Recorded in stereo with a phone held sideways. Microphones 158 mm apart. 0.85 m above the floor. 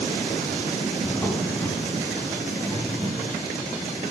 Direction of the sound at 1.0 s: 10° left (ahead or behind).